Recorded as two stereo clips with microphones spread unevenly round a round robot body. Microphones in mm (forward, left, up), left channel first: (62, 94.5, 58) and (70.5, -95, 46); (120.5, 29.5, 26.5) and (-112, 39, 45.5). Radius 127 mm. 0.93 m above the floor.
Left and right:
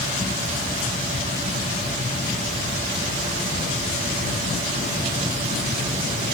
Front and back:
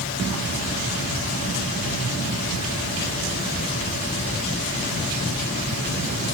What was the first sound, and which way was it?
Only background noise.